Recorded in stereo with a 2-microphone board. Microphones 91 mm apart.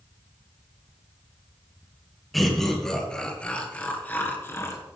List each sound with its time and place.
2.3 s laughter: centre (ahead or behind), 2.5 m; by 4.8 s 30° left (ahead or behind), 1.8 m